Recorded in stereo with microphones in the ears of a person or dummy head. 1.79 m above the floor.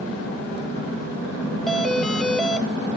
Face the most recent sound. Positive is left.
turn(degrees=0)  # may be behind; listen again after turning